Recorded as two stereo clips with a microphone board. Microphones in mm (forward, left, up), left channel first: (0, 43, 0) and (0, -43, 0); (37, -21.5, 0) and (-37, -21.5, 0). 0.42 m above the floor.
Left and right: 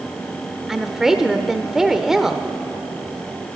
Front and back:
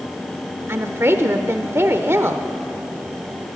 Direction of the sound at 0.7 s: 170° right.